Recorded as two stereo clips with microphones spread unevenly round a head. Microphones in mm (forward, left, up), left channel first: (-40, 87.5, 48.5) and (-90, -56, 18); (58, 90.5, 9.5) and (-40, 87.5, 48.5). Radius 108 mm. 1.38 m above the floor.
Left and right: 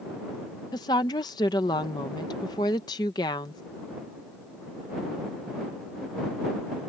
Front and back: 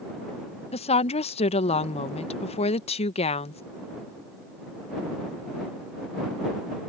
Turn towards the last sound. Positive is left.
turn(degrees=0)